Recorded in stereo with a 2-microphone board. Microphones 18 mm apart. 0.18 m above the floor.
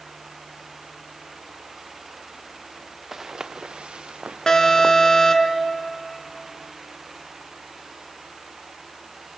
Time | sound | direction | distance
3.1 | footsteps | 20° right (ahead or behind) | 1.1 m
4.5 | an alarm | 35° left (ahead or behind) | 2 m